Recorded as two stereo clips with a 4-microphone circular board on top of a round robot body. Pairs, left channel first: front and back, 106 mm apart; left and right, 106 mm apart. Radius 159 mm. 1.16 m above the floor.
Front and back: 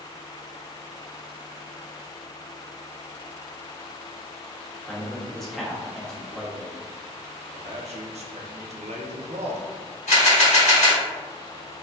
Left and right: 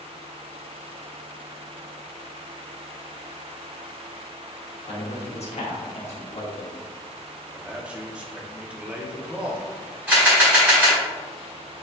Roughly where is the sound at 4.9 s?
Left.